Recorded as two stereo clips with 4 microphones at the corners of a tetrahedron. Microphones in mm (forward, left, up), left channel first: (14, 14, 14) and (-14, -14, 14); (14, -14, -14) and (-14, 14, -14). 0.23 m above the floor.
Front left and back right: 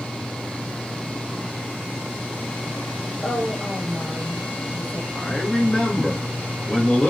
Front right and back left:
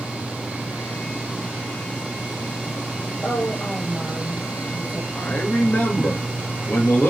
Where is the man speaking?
25° right, 4 m.